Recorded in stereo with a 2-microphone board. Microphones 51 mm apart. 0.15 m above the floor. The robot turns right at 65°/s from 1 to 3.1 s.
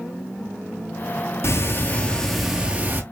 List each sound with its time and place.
1.4 s ticking: 120° left, 0.7 m; by 3.0 s 140° right, 0.7 m